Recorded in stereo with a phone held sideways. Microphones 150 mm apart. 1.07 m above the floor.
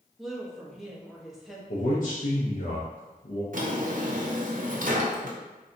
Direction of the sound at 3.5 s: 65° right (ahead or behind).